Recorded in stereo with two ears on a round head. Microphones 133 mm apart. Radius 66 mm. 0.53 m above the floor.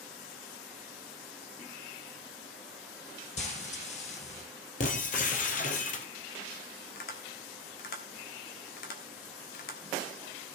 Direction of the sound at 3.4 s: 50° left (ahead or behind).